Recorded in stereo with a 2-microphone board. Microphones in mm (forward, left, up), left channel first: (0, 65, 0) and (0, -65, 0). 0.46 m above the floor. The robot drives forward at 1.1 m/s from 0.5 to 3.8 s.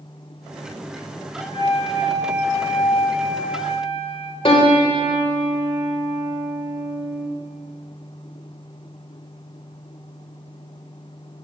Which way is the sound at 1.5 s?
40° left (ahead or behind).